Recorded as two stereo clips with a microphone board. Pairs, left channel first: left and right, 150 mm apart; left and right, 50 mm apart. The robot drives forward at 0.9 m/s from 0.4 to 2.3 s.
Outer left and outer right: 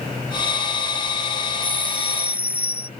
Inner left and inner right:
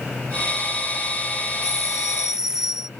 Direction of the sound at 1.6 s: 10° right (ahead or behind).